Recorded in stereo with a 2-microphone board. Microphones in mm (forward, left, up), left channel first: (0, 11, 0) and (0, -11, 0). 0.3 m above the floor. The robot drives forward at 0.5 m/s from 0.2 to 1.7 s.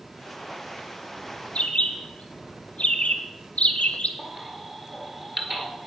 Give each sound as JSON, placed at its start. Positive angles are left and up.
{"t": 1.6, "sound": "a bird", "side_deg": 70, "distance_m": 0.9}
{"t": 4.2, "sound": "a baby crying", "side_deg": -20, "distance_m": 1.5}